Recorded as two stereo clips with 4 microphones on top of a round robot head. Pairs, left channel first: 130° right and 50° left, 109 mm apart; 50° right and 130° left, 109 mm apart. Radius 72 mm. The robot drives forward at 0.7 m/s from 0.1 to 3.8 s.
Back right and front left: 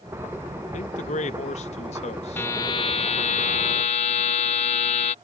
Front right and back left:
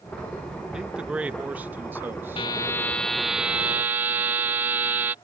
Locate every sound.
0.7 s a man speaking: 145° right; by 2.5 s 160° right
2.4 s a buzzer: 70° right; by 5.2 s 155° right